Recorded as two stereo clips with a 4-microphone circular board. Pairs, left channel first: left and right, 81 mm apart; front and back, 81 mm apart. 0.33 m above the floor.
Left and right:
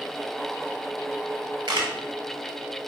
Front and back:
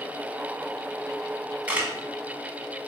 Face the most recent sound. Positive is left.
turn(degrees=-110)